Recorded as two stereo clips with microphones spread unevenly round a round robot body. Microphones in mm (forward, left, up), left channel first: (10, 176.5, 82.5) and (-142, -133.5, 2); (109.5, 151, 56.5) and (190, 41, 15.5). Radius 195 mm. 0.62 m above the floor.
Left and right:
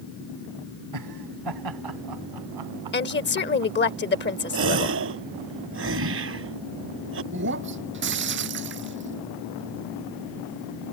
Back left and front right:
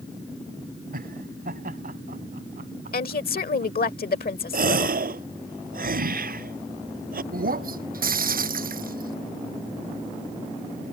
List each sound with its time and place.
0.9 s laughter: 80° right; by 3.9 s 115° right
2.9 s a woman speaking: 125° left
4.5 s a gasp: 60° right
7.3 s breaking glass: 55° right